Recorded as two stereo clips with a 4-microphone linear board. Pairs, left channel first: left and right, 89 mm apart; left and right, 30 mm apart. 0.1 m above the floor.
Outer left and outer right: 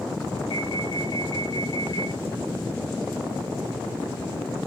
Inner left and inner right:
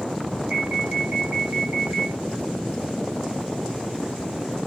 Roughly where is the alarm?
Right.